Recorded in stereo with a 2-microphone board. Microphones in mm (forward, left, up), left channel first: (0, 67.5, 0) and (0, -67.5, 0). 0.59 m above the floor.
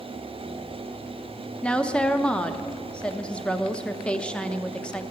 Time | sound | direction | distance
1.6 | a woman speaking | 10° left (ahead or behind) | 0.6 m